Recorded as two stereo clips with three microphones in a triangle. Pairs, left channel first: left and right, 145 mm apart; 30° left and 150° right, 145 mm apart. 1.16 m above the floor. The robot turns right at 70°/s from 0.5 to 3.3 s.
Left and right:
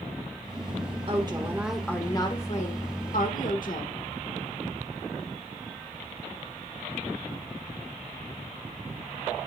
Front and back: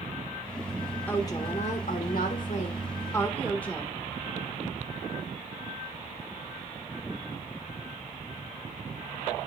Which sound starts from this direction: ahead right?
A woman speaking, at 1.1 s.